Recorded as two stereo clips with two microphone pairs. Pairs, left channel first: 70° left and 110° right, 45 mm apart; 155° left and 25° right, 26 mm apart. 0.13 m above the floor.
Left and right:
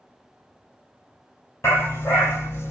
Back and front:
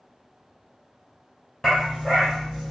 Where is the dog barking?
80° left, 1.7 m.